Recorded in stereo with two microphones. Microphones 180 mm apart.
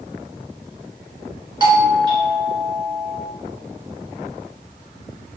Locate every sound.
1.6 s a doorbell: 25° right (ahead or behind), 2.5 m